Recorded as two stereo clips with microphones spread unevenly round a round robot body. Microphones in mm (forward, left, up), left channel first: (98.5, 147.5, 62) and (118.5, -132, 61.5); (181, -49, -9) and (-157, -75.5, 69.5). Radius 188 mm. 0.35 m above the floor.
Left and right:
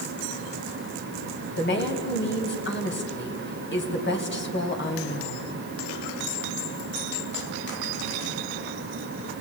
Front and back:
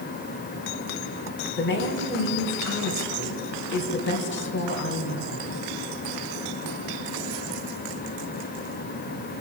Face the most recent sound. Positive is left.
turn(degrees=50)